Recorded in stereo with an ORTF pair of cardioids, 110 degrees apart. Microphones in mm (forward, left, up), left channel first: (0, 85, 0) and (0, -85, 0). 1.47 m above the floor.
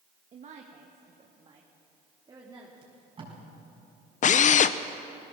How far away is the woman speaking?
About 1.6 m.